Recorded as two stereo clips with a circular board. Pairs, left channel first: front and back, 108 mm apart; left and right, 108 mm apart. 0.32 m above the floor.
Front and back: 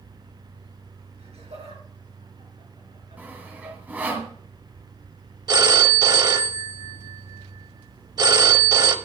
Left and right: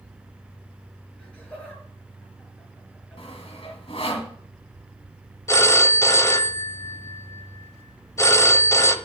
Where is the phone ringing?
145° left, 0.7 m.